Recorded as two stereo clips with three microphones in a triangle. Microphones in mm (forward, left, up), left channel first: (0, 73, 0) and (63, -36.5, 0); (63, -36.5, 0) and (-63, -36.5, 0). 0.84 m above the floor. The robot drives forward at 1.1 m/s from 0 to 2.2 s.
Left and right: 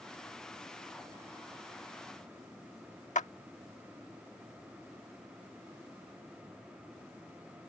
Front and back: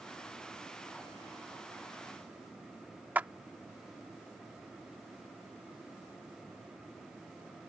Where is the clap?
105° left.